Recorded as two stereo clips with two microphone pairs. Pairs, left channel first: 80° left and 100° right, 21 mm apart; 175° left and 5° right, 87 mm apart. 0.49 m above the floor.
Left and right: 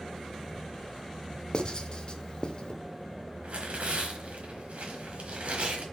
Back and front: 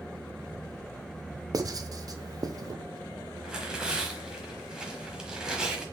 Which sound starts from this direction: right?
Tearing paper, at 3.4 s.